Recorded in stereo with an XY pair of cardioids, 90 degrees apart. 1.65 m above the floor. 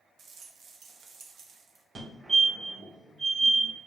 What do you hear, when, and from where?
0.2 s a rattle: 70° right, 1.2 m
1.9 s a fire alarm: 40° right, 2.5 m